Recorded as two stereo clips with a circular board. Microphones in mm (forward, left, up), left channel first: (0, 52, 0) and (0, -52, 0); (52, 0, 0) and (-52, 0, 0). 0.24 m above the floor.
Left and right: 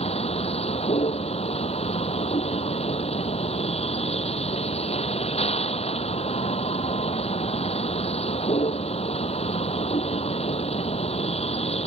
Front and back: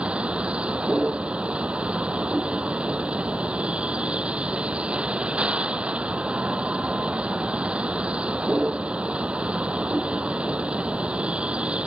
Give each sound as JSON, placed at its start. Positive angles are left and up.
{"t": 0.0, "sound": "a vehicle", "azimuth_deg": 100}